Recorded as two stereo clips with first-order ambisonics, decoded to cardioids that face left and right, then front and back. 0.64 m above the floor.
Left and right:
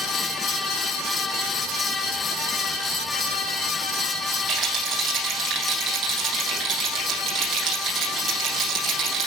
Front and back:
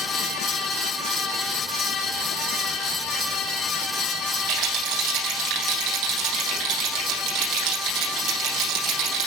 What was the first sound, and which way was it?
A rattle, 145° right.